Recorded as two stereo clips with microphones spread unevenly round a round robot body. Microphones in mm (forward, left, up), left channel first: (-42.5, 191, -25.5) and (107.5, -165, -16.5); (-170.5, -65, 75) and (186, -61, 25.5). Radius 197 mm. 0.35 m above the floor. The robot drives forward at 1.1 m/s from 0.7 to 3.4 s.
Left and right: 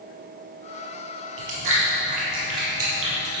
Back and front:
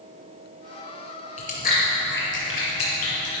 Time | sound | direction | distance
1.4 | chewing | 110° right | 4 m